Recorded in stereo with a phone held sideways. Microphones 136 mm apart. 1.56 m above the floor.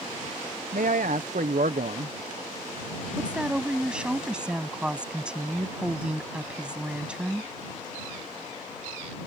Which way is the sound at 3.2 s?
5° right (ahead or behind).